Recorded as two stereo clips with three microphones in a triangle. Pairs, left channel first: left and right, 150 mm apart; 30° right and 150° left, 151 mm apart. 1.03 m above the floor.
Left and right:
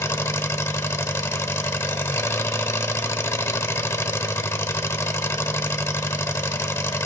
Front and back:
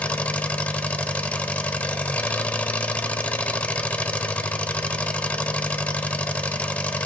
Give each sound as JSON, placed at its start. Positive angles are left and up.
{"t": 0.0, "sound": "an engine running", "azimuth_deg": 40, "distance_m": 0.8}